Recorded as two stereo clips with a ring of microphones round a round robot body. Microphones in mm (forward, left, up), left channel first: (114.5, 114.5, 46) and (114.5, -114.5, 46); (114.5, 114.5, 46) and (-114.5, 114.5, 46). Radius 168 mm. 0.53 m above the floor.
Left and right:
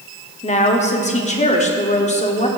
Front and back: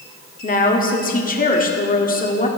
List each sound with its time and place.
0.4 s a woman speaking: 40° left, 1.5 m